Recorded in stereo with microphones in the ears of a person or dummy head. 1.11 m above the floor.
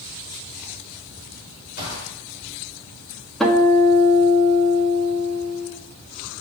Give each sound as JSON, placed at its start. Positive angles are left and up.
{"t": 1.8, "sound": "a gunshot", "side_deg": 60, "distance_m": 3.0}
{"t": 3.4, "sound": "a guitar", "side_deg": 0, "distance_m": 1.1}